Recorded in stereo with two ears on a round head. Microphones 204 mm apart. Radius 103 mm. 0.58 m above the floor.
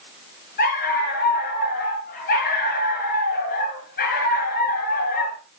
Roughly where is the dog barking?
Left.